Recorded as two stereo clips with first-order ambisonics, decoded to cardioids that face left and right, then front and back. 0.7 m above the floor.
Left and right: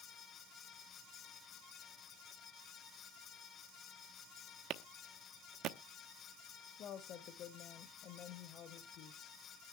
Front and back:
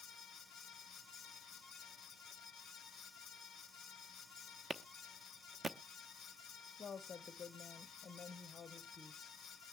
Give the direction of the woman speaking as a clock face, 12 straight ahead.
10 o'clock.